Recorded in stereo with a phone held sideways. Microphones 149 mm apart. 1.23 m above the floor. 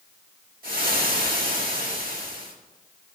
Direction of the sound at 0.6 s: 75° right (ahead or behind).